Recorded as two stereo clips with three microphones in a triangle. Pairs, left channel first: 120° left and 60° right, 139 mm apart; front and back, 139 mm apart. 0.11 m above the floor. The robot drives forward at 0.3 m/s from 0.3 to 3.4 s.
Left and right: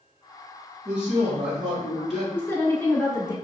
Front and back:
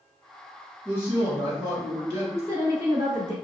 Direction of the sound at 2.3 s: 165° left.